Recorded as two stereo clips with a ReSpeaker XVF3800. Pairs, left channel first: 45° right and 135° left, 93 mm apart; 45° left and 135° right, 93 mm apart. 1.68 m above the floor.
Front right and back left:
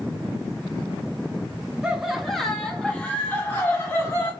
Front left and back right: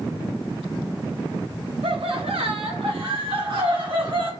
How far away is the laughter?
About 1.4 m.